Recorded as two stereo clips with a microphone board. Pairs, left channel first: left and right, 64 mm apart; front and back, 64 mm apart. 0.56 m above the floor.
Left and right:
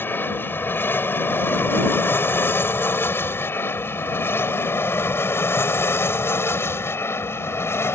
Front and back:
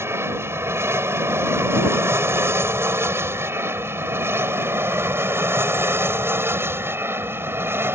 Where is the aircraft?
140° left; by 8.0 s 130° left.